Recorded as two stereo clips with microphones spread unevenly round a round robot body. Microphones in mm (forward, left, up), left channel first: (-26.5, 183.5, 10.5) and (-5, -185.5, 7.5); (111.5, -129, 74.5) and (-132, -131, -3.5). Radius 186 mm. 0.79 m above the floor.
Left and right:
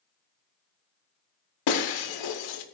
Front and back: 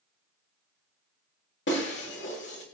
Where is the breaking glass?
60° left, 1.4 m.